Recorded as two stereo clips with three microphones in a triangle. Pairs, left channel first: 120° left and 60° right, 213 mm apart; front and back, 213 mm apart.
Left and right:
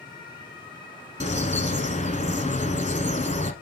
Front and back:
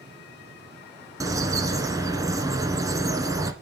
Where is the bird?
120° left, 1.0 m.